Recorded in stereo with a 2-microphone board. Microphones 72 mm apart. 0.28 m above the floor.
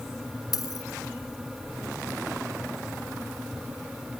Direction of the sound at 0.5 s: 60° left (ahead or behind).